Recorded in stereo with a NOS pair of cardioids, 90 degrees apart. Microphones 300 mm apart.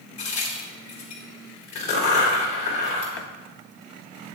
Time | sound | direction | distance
0.2 | a crack | 65° left | 4 m
3.2 | a running tap | 50° left | 1.3 m